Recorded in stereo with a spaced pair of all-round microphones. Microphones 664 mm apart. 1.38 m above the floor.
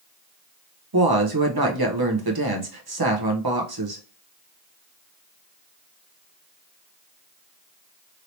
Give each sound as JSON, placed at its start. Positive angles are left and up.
{"t": 0.9, "sound": "a woman speaking", "side_deg": -35, "distance_m": 0.9}